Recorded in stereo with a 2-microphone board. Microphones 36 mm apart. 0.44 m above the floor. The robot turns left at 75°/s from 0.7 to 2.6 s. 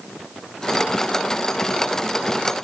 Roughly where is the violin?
I don't hear a violin.